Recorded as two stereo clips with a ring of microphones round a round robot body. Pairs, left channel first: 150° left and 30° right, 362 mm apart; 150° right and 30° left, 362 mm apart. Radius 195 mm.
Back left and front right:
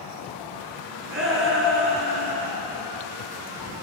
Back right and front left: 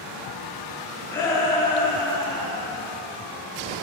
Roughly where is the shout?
Right.